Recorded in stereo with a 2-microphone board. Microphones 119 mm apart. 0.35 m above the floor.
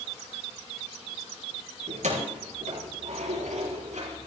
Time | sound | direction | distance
1.9 | keys jangling | 80° right | 4.5 m